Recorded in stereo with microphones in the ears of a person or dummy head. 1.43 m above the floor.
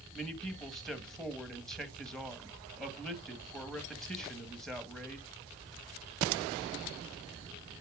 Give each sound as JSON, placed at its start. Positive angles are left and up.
{"t": 0.1, "sound": "a man speaking", "side_deg": 5, "distance_m": 1.6}